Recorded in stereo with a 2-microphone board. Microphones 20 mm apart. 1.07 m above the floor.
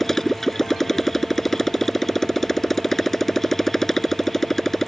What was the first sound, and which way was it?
A motorcycle, 15° left (ahead or behind).